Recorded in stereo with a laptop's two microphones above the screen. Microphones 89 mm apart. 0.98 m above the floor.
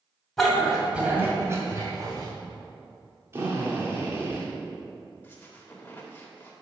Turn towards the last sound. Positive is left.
turn(degrees=20)  # may be behind; listen again after turning